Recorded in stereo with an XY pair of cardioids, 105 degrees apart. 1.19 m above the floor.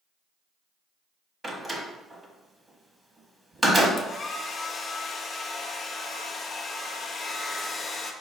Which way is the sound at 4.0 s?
40° left.